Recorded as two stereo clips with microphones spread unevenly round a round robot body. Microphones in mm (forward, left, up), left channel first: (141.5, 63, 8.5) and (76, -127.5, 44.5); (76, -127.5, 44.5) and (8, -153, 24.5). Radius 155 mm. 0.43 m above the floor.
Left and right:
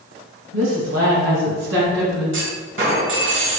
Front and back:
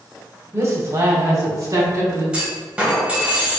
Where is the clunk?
90° right, 2 m.